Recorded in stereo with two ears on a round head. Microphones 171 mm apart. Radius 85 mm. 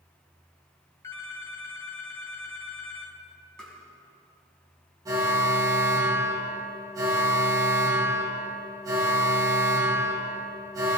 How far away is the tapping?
About 4 m.